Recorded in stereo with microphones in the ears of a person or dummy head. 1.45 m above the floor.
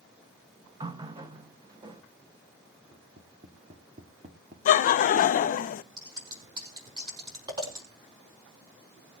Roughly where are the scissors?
Right.